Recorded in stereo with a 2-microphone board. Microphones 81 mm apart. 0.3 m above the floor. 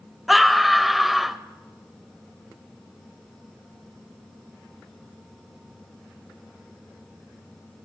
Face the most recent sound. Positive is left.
turn(degrees=0)  # may be behind; listen again after turning